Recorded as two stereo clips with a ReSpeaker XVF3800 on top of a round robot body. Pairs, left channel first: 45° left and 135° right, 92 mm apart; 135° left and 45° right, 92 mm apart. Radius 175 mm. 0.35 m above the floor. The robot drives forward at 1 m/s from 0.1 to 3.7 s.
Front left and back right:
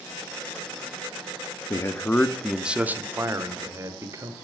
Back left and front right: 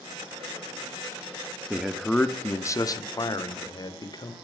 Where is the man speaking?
30° left, 1.1 m; by 4.3 s 170° left, 1.8 m.